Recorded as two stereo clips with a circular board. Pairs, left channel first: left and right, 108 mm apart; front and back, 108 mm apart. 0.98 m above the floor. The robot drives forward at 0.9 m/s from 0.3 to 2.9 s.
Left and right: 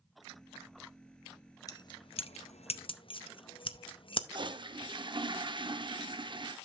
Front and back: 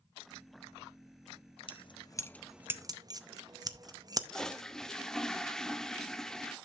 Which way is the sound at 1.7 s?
35° left.